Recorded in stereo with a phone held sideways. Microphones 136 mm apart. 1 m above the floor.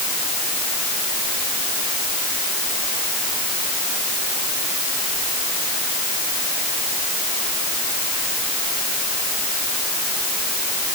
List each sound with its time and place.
Only background noise.